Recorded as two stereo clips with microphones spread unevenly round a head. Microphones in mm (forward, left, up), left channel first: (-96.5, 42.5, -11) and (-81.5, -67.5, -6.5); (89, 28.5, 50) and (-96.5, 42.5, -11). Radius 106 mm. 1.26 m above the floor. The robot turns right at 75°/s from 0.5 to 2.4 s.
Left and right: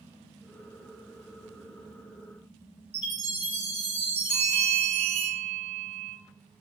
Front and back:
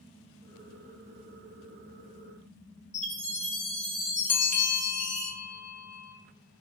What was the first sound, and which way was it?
A chime, 100° right.